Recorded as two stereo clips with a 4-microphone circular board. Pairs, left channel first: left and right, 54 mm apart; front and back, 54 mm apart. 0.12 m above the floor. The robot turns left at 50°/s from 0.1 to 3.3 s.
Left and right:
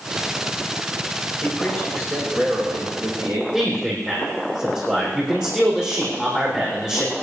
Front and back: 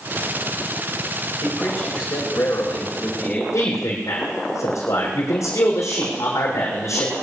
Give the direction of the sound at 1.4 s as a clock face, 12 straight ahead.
11 o'clock.